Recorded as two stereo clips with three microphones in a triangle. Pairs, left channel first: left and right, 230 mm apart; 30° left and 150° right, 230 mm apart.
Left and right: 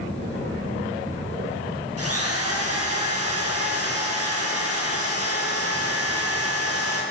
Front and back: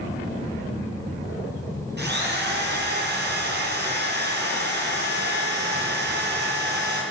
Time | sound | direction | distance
2.0 | a drill | 105° right | 7 m